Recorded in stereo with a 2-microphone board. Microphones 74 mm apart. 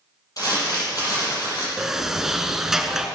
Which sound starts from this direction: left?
Crumpling, at 0.4 s.